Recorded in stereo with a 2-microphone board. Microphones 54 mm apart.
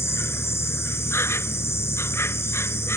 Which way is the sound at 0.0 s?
60° left (ahead or behind).